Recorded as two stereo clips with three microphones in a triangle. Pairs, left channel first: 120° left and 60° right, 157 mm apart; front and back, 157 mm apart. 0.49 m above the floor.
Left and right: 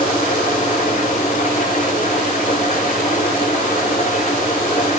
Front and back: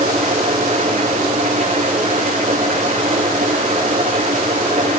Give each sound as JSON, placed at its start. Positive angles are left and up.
{"t": 0.0, "sound": "an engine running", "azimuth_deg": 155, "distance_m": 7.0}